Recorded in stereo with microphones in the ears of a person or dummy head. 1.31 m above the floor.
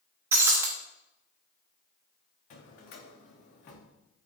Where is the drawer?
45° left (ahead or behind), 1.0 m.